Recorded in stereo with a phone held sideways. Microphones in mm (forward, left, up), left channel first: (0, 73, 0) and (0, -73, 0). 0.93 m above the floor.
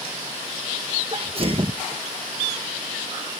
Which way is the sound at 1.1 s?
40° right (ahead or behind).